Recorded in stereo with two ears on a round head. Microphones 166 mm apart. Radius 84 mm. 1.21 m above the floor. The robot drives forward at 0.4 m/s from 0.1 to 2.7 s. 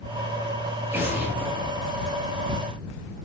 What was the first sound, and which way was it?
An explosion, 10° right (ahead or behind).